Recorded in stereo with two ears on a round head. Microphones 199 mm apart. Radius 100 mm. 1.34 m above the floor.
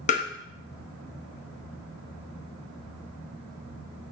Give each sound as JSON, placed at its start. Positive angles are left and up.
{"t": 0.1, "sound": "tapping", "side_deg": 30, "distance_m": 1.1}